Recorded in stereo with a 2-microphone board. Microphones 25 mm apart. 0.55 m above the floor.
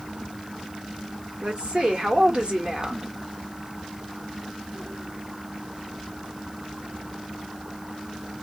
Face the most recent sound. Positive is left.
turn(degrees=-45)  # may be behind; listen again after turning